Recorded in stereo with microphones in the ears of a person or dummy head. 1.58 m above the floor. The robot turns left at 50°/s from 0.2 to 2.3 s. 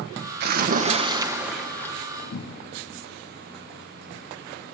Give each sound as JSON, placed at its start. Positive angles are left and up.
{"t": 0.4, "sound": "a splash", "azimuth_deg": -120, "distance_m": 1.4}
{"t": 2.3, "sound": "a cupboard door", "side_deg": 55, "distance_m": 1.3}